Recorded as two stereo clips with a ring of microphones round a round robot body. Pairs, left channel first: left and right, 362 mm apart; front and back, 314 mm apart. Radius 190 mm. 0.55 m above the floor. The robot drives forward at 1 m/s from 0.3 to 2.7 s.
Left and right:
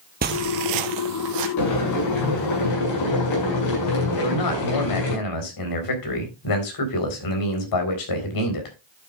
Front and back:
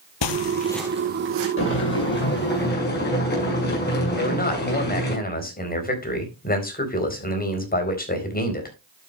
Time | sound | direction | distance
0.2 | footsteps | 25° right | 1.1 m
1.6 | boiling | 50° left | 7 m
4.2 | a man speaking | 60° left | 4 m